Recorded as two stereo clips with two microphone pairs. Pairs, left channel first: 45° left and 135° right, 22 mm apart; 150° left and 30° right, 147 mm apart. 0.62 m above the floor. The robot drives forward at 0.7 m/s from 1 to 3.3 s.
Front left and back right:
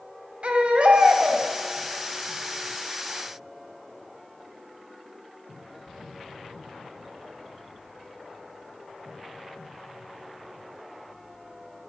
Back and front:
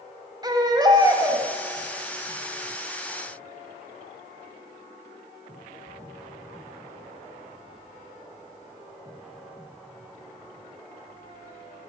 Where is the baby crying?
95° right, 1.7 m; by 1.4 s 105° right, 1.8 m.